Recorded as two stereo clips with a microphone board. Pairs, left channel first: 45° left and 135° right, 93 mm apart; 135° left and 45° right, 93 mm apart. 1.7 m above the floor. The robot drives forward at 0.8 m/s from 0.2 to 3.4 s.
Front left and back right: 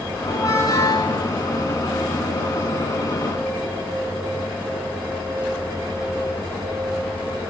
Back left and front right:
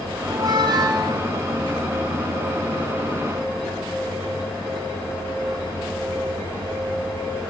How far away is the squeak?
About 5 m.